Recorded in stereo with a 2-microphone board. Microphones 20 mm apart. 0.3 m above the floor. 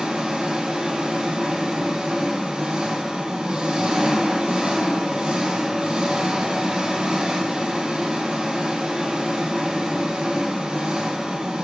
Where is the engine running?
70° right (ahead or behind), 1.2 m.